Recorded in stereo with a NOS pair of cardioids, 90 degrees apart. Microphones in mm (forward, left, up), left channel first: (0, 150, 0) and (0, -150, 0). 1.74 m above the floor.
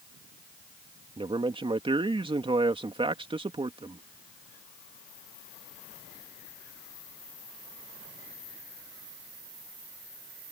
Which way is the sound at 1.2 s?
15° right.